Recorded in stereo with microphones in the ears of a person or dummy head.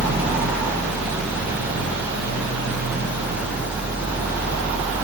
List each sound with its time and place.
0.0 s a fan: 5° right (ahead or behind), 0.9 m